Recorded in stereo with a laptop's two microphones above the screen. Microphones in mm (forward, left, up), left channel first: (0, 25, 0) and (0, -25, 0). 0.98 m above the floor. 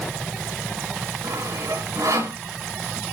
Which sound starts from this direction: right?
Sawing, at 1.2 s.